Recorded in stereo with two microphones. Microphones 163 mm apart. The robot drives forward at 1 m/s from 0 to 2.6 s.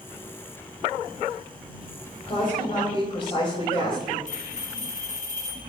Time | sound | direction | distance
2.2 | a woman speaking | 40° left (ahead or behind) | 4 m
4.3 | a bell | 50° left (ahead or behind) | 2 m